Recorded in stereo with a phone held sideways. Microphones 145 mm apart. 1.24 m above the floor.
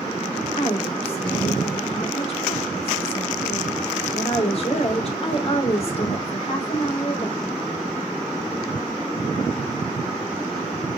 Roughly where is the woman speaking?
Left.